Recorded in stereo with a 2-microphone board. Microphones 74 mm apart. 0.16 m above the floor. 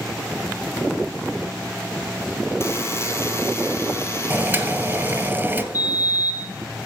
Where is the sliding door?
50° left (ahead or behind), 3.5 m.